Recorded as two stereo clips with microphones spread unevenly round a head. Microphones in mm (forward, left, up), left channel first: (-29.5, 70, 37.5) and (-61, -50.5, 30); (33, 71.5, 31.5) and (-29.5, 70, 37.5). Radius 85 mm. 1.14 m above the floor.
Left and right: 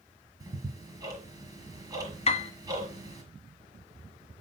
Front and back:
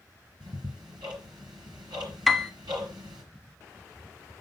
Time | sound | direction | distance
0.4 | ticking | 165° right | 4.5 m
2.3 | a piano | 85° left | 0.9 m